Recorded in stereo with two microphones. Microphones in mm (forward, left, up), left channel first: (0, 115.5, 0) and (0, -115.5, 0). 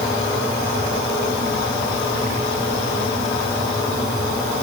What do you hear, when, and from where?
Only background noise.